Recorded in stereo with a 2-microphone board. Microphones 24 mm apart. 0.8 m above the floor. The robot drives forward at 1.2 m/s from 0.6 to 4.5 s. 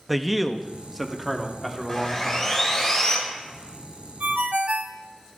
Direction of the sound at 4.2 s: 70° right (ahead or behind).